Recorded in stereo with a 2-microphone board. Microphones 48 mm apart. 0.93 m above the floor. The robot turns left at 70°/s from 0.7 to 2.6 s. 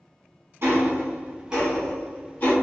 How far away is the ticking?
About 1.3 m.